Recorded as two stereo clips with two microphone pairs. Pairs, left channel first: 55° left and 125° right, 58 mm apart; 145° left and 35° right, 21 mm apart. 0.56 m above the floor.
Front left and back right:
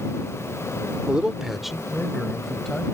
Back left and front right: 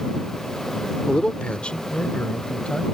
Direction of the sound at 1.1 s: 165° left.